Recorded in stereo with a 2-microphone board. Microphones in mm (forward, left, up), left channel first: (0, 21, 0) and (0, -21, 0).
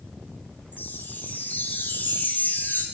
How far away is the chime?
About 0.8 m.